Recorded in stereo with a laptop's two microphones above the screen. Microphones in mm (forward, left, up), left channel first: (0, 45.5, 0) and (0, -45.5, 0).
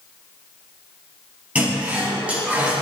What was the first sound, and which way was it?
A toilet flushing, 15° right (ahead or behind).